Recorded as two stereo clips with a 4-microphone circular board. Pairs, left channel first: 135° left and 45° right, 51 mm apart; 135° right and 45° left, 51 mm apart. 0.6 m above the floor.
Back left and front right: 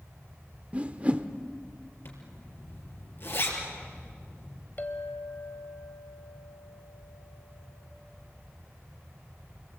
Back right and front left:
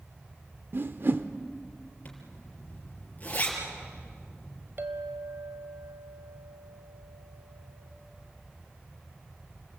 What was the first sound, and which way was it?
A whoosh, 15° left.